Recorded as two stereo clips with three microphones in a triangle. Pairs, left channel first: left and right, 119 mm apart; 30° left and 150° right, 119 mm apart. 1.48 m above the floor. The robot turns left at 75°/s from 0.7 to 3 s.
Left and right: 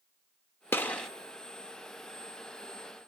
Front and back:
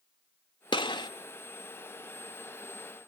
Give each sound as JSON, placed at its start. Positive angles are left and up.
{"t": 0.7, "sound": "a gunshot", "azimuth_deg": 30, "distance_m": 1.3}